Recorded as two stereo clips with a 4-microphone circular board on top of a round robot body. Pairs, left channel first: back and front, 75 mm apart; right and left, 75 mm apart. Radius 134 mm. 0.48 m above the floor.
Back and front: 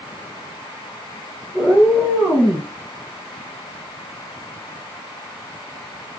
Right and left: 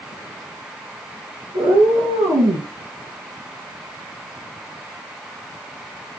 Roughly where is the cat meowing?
Left.